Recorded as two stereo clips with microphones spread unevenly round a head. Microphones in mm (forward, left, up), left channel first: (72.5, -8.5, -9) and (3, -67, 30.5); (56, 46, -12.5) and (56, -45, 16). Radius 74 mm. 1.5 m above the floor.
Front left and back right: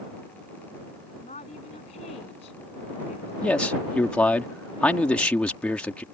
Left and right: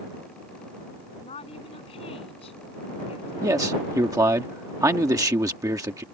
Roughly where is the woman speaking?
Left.